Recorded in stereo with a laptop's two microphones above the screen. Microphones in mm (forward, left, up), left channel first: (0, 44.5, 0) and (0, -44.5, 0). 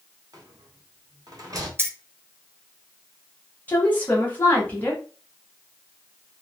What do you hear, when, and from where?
0.3 s a rattle: 45° right (ahead or behind), 0.8 m
1.8 s keys jangling: 30° right (ahead or behind), 0.6 m
3.7 s a woman speaking: 20° left (ahead or behind), 0.9 m